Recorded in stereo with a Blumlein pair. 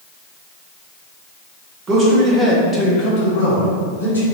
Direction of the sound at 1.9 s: 30° right.